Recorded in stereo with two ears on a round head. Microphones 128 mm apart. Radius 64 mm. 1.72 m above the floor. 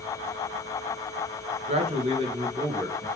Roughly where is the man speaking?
Right.